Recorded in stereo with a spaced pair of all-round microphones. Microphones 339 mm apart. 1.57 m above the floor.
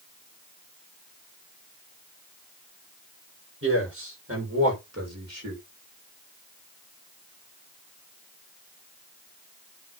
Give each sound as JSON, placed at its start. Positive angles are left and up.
{"t": 3.6, "sound": "a man speaking", "side_deg": -35, "distance_m": 6.5}